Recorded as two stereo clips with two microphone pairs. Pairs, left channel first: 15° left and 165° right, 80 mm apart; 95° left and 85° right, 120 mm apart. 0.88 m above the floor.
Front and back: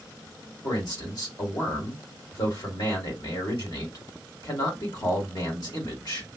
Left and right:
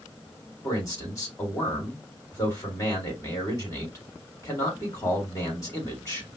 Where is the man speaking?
35° left, 2.0 m.